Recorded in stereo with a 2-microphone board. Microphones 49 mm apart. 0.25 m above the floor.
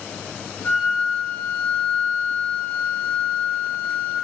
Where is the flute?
35° left (ahead or behind), 1.2 m.